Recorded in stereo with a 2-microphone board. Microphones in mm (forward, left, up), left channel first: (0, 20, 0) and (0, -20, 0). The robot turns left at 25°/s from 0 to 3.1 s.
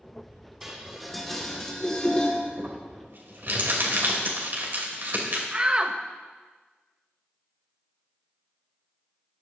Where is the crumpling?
45° right (ahead or behind), 2.5 m; by 5.4 s 55° right (ahead or behind), 2.5 m.